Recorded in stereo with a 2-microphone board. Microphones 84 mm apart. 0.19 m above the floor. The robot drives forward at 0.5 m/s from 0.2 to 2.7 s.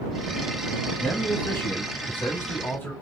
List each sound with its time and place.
1.0 s a man speaking: 25° left (ahead or behind), 1.3 m